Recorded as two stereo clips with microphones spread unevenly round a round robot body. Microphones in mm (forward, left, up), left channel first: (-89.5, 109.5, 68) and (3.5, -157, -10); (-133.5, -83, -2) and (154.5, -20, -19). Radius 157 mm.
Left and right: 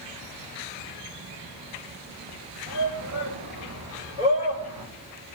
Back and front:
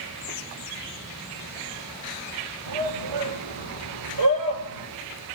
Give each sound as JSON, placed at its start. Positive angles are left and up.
{"t": 2.7, "sound": "a shout", "azimuth_deg": -15, "distance_m": 7.0}